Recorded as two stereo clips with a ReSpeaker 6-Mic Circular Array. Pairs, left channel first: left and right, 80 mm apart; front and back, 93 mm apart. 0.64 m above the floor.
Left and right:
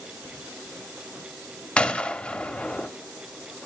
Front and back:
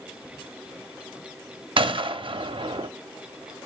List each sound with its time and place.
1.8 s a gunshot: 165° left, 0.6 m